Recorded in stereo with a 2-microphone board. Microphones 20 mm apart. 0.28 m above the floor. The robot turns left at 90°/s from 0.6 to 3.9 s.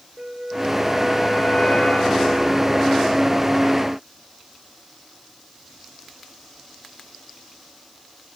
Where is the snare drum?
I don't hear a snare drum.